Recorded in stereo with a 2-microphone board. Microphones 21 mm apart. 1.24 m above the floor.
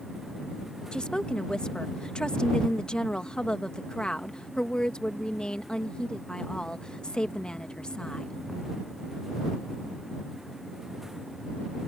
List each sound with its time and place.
0.9 s a woman speaking: 45° left (ahead or behind)